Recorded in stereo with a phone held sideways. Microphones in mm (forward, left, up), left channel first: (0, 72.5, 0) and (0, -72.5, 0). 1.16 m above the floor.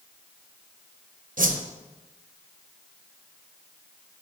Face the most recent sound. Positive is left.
turn(degrees=-70)  # may be behind; listen again after turning